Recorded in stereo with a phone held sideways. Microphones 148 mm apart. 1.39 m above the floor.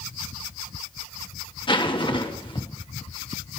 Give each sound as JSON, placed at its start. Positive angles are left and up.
{"t": 1.7, "sound": "a zipper", "side_deg": 35, "distance_m": 1.3}